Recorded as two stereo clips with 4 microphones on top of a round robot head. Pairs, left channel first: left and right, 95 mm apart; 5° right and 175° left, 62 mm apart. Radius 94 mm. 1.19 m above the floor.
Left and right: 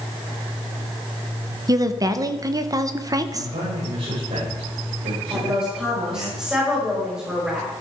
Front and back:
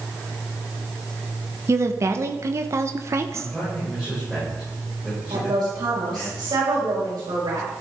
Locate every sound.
1.7 s a woman speaking: 140° right, 1.3 m
3.3 s a man speaking: 100° right, 6.5 m
5.3 s a woman speaking: 170° right, 5 m